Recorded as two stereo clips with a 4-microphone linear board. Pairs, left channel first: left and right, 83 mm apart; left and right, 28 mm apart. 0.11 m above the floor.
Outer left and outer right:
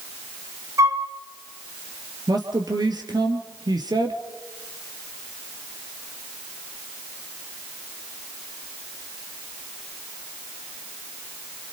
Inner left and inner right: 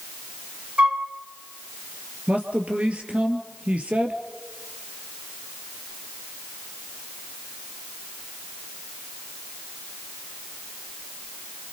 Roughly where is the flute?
Right.